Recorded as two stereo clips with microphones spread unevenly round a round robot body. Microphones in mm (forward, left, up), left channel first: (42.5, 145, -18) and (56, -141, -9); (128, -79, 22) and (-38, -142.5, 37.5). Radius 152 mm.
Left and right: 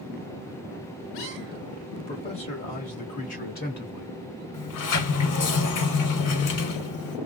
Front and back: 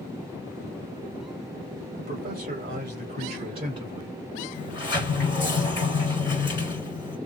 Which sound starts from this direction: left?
A sliding door, at 4.5 s.